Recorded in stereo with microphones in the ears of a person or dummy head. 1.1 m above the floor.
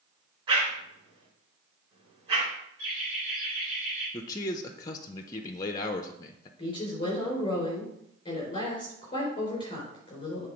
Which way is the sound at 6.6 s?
25° left (ahead or behind).